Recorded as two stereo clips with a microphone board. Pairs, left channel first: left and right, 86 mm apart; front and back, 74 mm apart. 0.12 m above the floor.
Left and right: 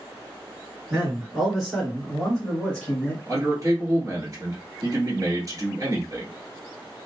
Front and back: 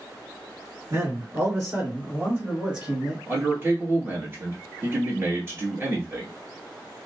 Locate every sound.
0.9 s a man speaking: 165° right, 1.8 m; by 3.2 s 120° left, 1.5 m
3.3 s a man speaking: 125° right, 1.5 m